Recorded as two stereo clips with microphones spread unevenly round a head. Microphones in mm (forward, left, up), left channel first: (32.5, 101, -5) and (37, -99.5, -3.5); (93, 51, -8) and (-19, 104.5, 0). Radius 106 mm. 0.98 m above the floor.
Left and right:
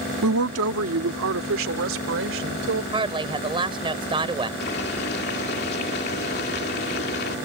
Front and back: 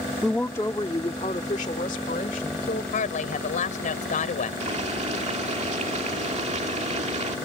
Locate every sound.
0.2 s a woman speaking: 115° right; by 2.8 s 70° right
2.9 s a woman speaking: 25° right
4.6 s boiling: 135° left